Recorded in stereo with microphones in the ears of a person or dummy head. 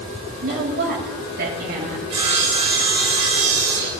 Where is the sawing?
30° right (ahead or behind), 1.4 m.